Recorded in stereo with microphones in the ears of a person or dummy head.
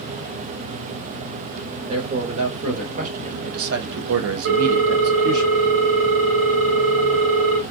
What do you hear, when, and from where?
1.9 s a man speaking: 35° right (ahead or behind), 1.6 m; by 5.5 s 45° right (ahead or behind), 0.7 m
4.5 s a ringtone: 70° right (ahead or behind), 2 m